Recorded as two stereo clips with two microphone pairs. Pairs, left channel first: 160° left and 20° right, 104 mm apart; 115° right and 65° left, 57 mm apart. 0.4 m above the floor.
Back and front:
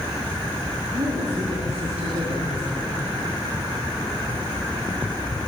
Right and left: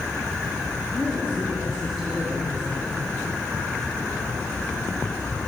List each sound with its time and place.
0.9 s a woman speaking: 30° right, 6.5 m